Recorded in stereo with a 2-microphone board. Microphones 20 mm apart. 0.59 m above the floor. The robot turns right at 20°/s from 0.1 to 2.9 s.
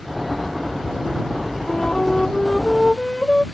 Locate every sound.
1.7 s a flute: 60° left (ahead or behind); by 3.4 s 35° left (ahead or behind)